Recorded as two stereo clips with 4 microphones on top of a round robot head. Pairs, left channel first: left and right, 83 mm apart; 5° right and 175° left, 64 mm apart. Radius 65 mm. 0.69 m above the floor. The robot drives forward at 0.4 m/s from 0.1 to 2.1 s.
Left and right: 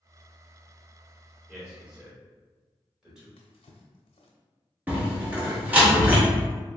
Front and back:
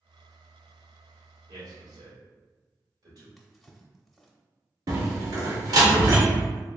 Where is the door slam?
160° right, 1.4 m.